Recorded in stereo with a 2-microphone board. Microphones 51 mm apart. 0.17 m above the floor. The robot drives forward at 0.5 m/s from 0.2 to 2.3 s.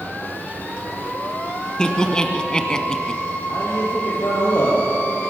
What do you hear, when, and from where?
1.8 s laughter: 15° left (ahead or behind), 1.3 m
3.5 s a man speaking: 75° left (ahead or behind), 5 m